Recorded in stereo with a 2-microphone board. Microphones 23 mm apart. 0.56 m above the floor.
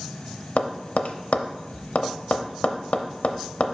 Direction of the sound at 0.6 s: 70° left (ahead or behind).